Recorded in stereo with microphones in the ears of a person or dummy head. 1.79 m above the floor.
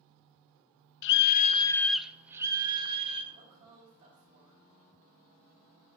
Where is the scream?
75° left (ahead or behind), 0.5 m; by 3.2 s 25° right (ahead or behind), 1.2 m.